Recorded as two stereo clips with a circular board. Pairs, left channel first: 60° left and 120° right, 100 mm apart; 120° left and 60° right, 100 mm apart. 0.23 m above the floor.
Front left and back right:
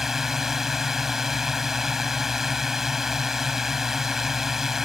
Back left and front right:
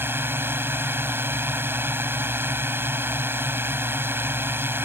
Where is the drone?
40° right.